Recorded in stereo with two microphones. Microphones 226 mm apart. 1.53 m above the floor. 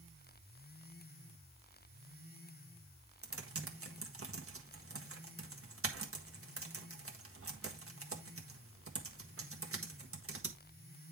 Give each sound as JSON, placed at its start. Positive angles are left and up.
{"t": 3.2, "sound": "typing on a keyboard", "side_deg": -75, "distance_m": 1.5}